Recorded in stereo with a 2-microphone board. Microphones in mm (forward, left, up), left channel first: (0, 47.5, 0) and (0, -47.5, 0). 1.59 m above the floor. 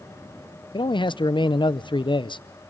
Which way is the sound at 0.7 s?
55° left (ahead or behind).